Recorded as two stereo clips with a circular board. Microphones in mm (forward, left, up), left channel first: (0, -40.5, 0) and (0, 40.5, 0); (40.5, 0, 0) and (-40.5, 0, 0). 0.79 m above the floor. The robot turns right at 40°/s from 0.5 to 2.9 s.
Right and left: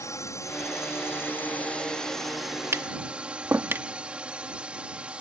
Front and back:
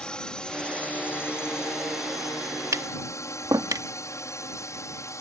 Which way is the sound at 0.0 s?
75° right.